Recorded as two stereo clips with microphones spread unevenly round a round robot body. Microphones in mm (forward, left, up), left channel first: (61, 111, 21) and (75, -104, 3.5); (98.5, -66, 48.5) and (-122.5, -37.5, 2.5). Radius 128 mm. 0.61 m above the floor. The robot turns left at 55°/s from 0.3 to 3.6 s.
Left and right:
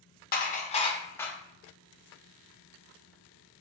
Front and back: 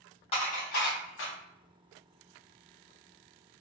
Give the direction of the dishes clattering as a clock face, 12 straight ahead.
10 o'clock.